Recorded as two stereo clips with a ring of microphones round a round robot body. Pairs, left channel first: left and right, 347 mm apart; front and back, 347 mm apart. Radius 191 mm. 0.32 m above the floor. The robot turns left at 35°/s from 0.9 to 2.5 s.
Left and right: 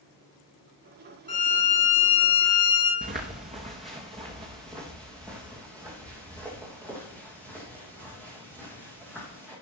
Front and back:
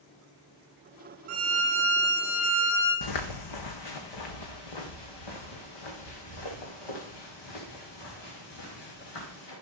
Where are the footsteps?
20° right, 1.4 m; by 9.5 s 5° right, 7 m.